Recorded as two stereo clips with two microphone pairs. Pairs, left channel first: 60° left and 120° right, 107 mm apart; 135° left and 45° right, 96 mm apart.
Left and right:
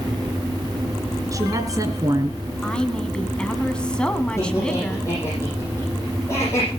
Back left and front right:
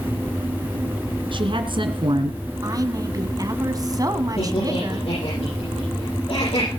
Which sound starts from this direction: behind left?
Laughter, at 4.4 s.